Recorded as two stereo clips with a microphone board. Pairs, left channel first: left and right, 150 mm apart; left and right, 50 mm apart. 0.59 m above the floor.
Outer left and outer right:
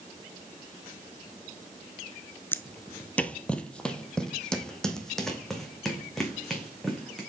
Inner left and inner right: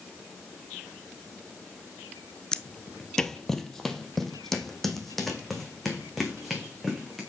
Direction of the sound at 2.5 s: 15° left (ahead or behind).